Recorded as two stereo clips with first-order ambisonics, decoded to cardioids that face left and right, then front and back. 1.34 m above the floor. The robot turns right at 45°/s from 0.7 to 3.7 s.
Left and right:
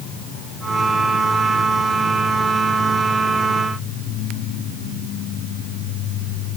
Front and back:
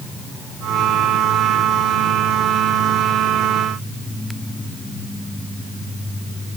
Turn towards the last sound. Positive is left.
No sound to turn to.